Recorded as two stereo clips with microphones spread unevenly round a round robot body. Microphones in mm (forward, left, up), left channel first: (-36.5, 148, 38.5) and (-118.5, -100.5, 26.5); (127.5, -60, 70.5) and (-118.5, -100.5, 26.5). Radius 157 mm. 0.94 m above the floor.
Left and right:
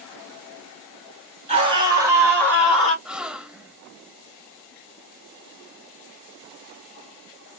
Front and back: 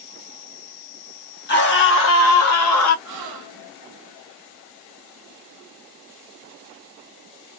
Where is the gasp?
165° left, 0.6 m.